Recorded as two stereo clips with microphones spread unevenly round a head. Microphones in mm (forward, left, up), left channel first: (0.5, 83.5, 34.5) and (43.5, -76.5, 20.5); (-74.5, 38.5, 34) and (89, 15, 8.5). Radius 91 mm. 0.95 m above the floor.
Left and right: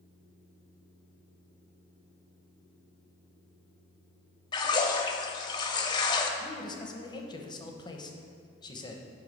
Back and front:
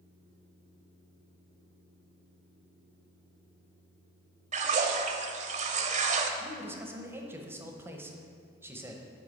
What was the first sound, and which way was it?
A splash, 40° left.